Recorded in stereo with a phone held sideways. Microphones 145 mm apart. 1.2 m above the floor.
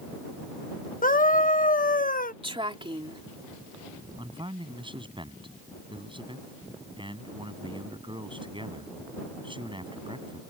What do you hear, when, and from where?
1.0 s a scream: 70° left (ahead or behind)
2.4 s a woman speaking: 35° right (ahead or behind)
4.2 s a man speaking: 35° right (ahead or behind)